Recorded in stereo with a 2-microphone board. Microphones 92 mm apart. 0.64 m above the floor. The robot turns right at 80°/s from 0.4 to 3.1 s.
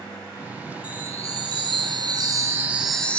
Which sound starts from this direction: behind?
A chime, at 0.8 s.